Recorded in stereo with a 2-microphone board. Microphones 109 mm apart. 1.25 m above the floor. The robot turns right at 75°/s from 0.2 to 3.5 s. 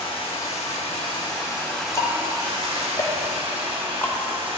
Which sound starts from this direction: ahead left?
Running water, at 0.0 s.